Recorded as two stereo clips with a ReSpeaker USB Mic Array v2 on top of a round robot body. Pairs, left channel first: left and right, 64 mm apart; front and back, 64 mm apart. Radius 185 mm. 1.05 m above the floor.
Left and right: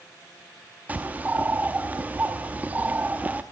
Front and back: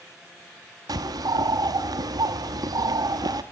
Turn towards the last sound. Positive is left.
turn(degrees=-155)